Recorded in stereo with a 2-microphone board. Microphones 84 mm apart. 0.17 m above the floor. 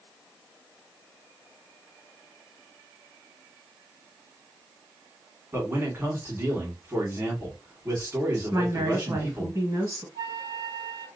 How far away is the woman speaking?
About 1.4 m.